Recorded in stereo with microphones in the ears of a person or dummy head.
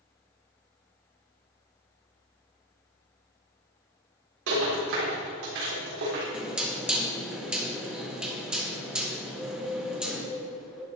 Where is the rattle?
80° right, 3.5 m.